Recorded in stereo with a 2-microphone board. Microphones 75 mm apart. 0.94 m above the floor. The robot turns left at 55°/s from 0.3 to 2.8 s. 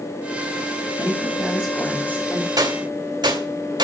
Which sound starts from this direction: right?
A gunshot, at 2.6 s.